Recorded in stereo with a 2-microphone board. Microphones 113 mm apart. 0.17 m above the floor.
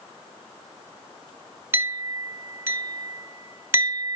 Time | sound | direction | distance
1.7 | a clink | 25° right (ahead or behind) | 1.2 m